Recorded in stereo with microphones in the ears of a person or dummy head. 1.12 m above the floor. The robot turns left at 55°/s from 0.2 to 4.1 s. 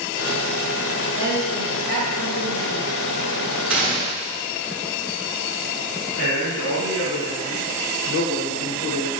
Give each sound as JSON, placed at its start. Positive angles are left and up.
{"t": 1.1, "sound": "a woman speaking", "azimuth_deg": 160, "distance_m": 1.2}
{"t": 3.7, "sound": "a gunshot", "side_deg": 0, "distance_m": 0.6}
{"t": 6.2, "sound": "a man speaking", "side_deg": 80, "distance_m": 1.0}